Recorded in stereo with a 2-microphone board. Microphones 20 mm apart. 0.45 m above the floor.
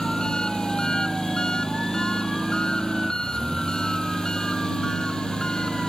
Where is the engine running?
45° left (ahead or behind).